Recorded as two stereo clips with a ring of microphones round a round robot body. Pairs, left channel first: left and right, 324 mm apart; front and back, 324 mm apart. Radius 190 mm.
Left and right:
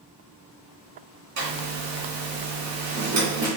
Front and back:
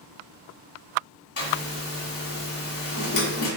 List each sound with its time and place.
1.4 s a zipper: 40° right, 1.9 m